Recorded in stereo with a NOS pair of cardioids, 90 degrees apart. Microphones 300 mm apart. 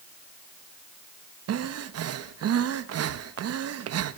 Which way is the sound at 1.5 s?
55° right.